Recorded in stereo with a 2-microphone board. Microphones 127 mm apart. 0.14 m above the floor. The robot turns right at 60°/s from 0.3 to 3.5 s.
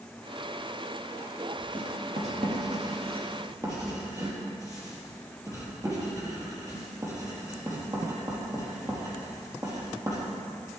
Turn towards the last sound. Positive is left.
turn(degrees=-30)  # may be behind; listen again after turning